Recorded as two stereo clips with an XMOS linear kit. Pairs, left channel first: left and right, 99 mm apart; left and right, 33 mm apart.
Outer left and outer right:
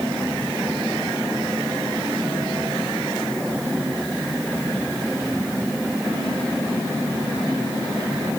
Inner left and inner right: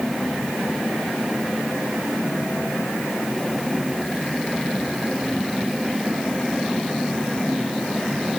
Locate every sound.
Only background noise.